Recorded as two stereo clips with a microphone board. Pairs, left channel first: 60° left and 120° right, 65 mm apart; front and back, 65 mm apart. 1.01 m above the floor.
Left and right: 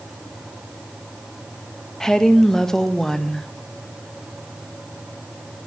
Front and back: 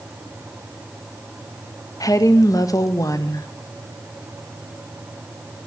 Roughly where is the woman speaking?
Ahead.